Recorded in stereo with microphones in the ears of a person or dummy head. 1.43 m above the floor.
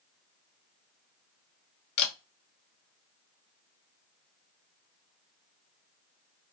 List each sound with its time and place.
2.0 s a camera shutter: 55° left (ahead or behind), 0.8 m